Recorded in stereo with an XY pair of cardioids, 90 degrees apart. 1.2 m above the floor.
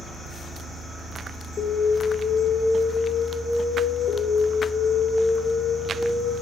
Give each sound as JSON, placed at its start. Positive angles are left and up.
{"t": 1.6, "sound": "an alarm", "azimuth_deg": 65, "distance_m": 2.5}